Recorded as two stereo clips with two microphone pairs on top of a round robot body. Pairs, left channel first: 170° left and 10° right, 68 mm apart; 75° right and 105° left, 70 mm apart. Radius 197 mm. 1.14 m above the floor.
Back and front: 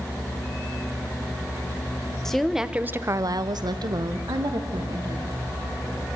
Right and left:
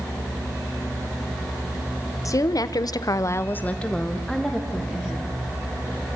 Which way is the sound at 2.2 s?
110° right.